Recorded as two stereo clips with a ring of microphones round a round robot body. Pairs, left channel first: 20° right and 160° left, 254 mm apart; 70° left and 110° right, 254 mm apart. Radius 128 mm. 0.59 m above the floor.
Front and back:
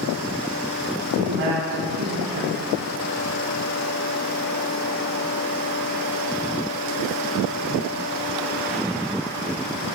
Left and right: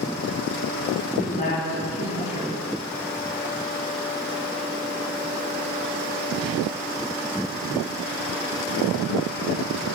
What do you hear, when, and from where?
1.2 s a woman speaking: 120° left, 4.5 m